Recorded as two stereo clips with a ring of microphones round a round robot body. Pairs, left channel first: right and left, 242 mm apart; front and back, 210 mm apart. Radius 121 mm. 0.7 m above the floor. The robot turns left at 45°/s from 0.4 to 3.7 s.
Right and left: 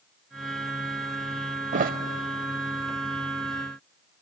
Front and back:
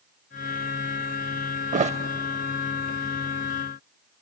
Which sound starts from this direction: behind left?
A thud, at 1.7 s.